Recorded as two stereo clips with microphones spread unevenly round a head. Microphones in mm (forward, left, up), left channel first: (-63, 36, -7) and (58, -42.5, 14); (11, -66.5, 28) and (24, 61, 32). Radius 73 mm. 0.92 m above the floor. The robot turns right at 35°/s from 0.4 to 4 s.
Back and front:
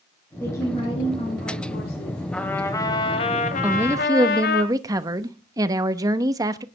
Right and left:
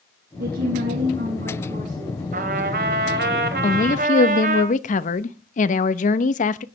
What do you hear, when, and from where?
0.4 s a woman speaking: 70° left, 8 m; by 2.2 s 135° left, 8 m
2.3 s a trumpet: 60° left, 2.5 m; by 4.6 s 120° left, 2.5 m
3.6 s a woman speaking: 115° right, 1.0 m; by 6.7 s 100° right, 1.0 m